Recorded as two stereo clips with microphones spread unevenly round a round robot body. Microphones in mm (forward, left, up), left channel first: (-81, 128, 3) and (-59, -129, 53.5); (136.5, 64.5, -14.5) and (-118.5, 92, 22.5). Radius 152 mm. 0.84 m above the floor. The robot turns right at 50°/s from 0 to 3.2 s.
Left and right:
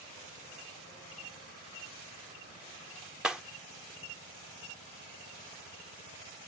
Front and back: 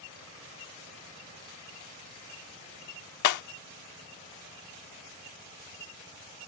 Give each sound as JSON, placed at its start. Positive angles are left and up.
{"t": 3.2, "sound": "breaking glass", "azimuth_deg": 0}